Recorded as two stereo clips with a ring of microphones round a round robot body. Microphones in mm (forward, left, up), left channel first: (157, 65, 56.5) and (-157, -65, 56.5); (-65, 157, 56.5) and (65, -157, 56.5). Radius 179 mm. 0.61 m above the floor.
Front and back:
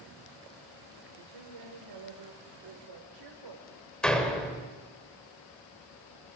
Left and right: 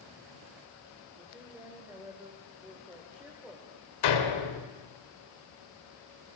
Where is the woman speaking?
150° right, 3 m.